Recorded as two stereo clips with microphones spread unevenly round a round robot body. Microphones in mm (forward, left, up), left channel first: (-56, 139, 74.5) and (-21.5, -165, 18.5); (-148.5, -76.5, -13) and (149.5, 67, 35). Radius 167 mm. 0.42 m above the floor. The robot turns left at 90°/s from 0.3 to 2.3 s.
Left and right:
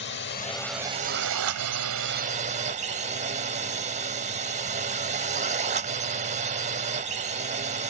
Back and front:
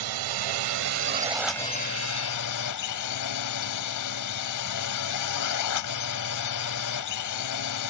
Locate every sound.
0.0 s a drone: 40° left; by 7.9 s 140° right